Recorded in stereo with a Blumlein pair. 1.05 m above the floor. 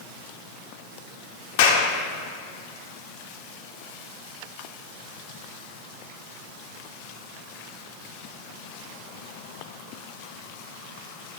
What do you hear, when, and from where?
1.6 s a clap: 50° left, 2.5 m